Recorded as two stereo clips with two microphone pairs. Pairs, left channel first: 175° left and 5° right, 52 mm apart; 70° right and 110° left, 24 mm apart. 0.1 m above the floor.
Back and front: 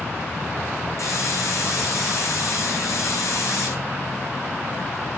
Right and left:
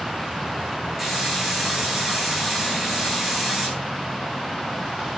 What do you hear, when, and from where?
1.0 s a hiss: 165° right, 8 m